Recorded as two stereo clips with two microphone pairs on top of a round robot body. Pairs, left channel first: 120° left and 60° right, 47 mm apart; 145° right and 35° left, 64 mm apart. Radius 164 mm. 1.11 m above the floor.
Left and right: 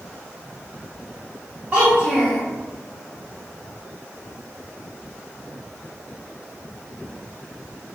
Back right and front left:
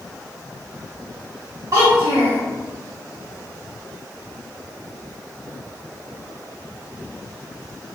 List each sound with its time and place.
1.7 s a child speaking: straight ahead, 0.7 m